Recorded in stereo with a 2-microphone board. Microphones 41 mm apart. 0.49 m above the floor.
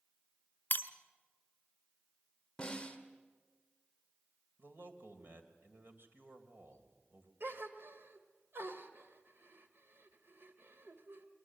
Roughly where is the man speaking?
Right.